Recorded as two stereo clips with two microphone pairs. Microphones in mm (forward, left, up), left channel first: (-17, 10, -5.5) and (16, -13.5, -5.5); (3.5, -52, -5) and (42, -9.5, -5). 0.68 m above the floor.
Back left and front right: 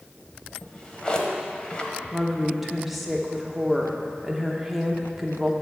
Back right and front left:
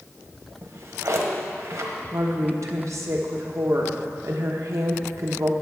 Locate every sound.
0.6 s a drawer: 75° left, 1.1 m
2.1 s a woman speaking: 50° left, 1.1 m